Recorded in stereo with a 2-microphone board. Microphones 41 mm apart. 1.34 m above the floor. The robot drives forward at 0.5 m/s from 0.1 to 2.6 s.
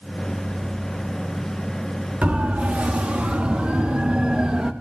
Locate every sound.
2.2 s a siren: 35° right (ahead or behind), 3.5 m; by 4.7 s 20° right (ahead or behind), 2 m